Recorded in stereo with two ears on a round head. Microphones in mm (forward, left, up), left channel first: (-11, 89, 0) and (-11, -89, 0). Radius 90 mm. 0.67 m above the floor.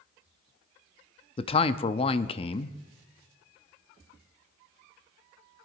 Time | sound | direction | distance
1.4 | a man speaking | 30° left (ahead or behind) | 0.5 m